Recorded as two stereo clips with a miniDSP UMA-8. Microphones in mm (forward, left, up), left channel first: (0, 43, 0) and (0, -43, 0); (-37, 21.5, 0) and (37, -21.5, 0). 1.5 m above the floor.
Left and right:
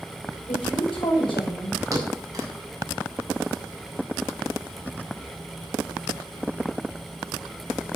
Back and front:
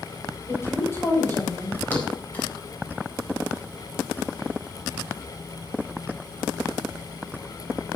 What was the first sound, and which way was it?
A woman speaking, 90° left.